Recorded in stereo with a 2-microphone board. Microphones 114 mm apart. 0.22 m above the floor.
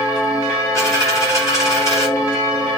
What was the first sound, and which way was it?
A dropped coin, 25° left (ahead or behind).